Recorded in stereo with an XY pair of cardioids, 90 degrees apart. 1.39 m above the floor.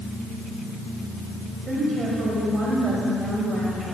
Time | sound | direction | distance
1.7 | a woman speaking | 45° right | 6 m